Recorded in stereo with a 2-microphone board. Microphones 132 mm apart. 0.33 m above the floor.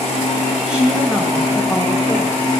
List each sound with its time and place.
0.7 s a woman speaking: 10° right (ahead or behind), 2.0 m; by 2.4 s 10° left (ahead or behind), 1.5 m